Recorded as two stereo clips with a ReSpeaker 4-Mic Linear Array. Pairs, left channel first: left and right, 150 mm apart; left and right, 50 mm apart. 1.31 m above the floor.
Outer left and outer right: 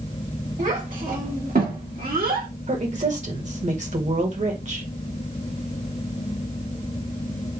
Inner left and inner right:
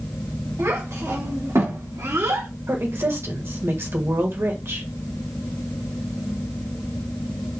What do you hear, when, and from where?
0.6 s a child speaking: 60° right (ahead or behind), 2 m; by 2.5 s 75° right (ahead or behind), 1.7 m
2.7 s a woman speaking: 50° right (ahead or behind), 1.4 m